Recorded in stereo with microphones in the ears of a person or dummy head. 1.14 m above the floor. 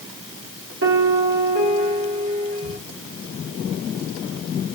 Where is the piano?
70° right (ahead or behind), 1.6 m.